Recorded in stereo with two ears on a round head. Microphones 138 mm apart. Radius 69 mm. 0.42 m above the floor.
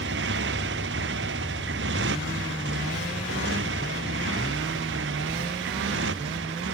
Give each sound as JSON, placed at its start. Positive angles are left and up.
{"t": 0.0, "sound": "a motorcycle", "side_deg": -80}